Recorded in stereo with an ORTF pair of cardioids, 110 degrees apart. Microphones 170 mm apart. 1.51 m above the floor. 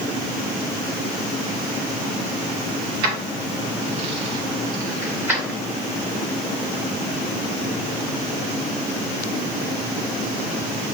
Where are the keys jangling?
65° right, 2 m; by 5.6 s 5° right, 2.5 m.